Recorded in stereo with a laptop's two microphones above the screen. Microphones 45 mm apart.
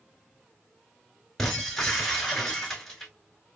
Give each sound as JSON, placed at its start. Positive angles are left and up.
{"t": 1.4, "sound": "breaking glass", "side_deg": 5, "distance_m": 3.5}